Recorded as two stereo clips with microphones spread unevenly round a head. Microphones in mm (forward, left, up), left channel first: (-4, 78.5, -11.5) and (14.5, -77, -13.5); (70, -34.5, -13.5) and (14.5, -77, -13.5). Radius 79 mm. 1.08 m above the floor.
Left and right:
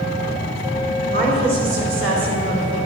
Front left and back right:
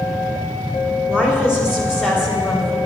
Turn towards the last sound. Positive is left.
turn(degrees=-30)